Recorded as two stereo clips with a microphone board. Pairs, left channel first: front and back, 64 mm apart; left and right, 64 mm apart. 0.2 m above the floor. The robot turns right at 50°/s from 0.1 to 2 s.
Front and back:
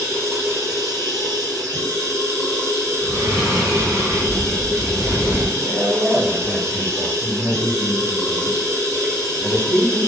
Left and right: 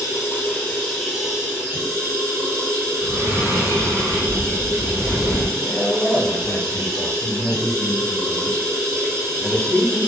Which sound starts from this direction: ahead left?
A man speaking, at 5.6 s.